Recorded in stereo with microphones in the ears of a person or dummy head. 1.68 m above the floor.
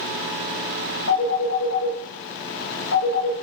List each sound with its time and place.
1.1 s a phone ringing: 60° left (ahead or behind), 1.1 m